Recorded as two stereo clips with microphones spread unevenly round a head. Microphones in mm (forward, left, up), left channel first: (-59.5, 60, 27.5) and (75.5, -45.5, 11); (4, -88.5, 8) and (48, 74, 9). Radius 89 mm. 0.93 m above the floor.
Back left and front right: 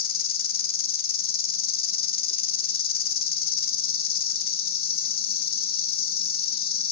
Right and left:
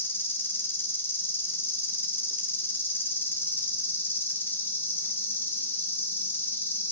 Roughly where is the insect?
Behind.